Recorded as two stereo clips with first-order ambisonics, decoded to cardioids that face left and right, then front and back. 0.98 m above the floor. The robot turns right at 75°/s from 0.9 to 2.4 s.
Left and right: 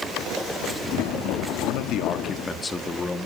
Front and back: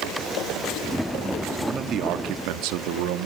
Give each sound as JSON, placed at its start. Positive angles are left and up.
{"t": 1.6, "sound": "a man speaking", "azimuth_deg": 105, "distance_m": 1.4}